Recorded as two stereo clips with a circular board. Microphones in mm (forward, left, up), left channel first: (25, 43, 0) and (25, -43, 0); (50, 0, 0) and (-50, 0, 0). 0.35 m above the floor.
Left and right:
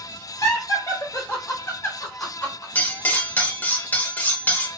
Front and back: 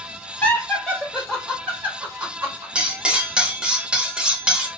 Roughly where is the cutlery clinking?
Behind left.